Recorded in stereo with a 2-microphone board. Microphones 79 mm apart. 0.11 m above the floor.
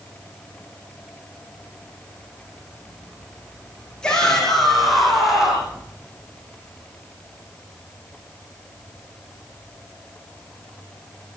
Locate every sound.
4.0 s a shout: 10° left (ahead or behind), 6.5 m; by 5.8 s 10° right (ahead or behind), 6.5 m